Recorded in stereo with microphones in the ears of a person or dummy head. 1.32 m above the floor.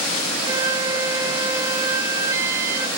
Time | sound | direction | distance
0.5 | a flute | 20° right (ahead or behind) | 1.1 m